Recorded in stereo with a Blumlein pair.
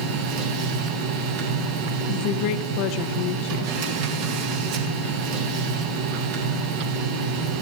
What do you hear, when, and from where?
0.0 s a machine running: 45° right, 2 m
2.1 s a woman speaking: 40° left, 0.9 m